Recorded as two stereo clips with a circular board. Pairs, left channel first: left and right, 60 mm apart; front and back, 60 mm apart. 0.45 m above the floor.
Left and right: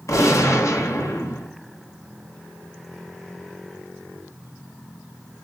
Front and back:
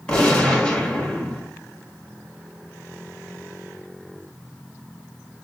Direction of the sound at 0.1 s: 70° left.